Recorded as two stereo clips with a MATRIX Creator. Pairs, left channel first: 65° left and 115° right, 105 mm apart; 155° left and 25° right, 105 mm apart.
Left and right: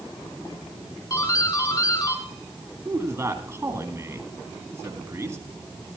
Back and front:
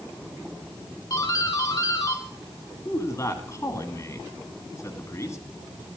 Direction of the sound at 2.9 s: 160° right.